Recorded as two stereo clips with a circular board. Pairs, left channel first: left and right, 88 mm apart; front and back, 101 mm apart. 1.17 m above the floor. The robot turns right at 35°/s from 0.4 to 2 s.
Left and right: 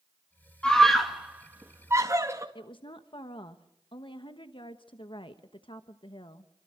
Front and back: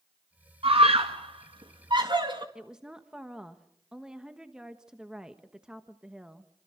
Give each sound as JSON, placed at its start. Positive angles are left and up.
{"t": 0.6, "sound": "a scream", "azimuth_deg": 170, "distance_m": 2.0}
{"t": 2.5, "sound": "a woman speaking", "azimuth_deg": 100, "distance_m": 1.2}